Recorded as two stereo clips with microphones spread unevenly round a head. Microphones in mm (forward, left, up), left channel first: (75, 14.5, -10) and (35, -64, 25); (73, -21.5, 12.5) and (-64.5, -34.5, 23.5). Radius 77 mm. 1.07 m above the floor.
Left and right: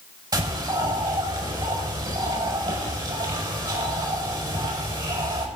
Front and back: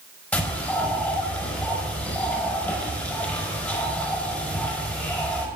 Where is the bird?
75° right, 5 m.